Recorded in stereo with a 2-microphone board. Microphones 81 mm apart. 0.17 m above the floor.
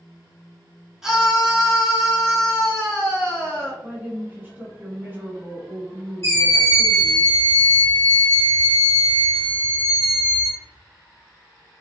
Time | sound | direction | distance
1.0 | a scream | 5° right (ahead or behind) | 1.4 m
3.8 | a woman speaking | 25° right (ahead or behind) | 1.4 m
6.2 | a scream | 35° left (ahead or behind) | 2.0 m